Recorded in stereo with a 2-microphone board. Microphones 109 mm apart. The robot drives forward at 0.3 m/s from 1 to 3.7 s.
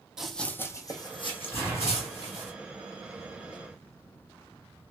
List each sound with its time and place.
0.2 s running footsteps: 5° right (ahead or behind), 0.6 m; by 2.5 s 85° left, 1.4 m
1.5 s an explosion: 20° left (ahead or behind), 1.9 m; by 2.5 s 25° left (ahead or behind), 1.8 m